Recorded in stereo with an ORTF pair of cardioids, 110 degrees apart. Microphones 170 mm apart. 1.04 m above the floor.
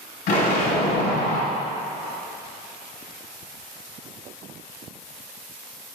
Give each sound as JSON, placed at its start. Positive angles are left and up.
{"t": 0.3, "sound": "an explosion", "azimuth_deg": 60, "distance_m": 2.0}